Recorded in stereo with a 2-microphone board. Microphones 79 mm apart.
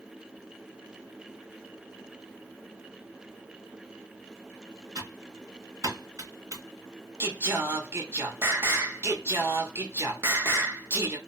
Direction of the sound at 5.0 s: 45° right (ahead or behind).